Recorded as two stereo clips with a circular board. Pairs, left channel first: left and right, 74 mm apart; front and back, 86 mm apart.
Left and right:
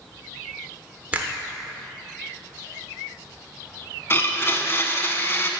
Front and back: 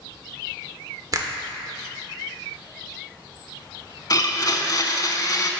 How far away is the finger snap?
About 0.7 m.